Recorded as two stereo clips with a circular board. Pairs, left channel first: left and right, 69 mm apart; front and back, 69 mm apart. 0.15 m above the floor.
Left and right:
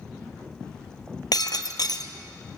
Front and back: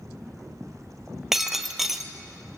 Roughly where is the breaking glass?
Left.